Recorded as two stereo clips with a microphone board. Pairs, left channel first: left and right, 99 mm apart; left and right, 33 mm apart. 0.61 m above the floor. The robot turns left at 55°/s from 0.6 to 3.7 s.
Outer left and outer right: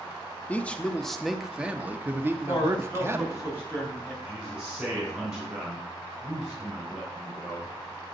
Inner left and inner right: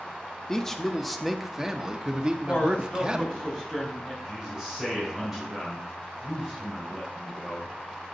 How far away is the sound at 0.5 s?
About 0.7 m.